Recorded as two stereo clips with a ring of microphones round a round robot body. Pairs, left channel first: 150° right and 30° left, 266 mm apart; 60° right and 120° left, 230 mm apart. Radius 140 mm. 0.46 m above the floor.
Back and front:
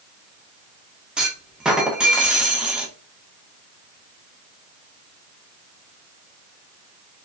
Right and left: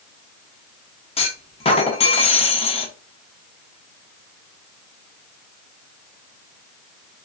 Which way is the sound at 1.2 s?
55° right.